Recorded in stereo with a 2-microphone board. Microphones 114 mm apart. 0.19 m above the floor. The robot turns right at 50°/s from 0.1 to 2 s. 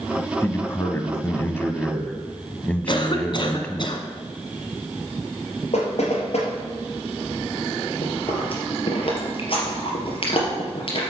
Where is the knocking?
70° left (ahead or behind), 4 m.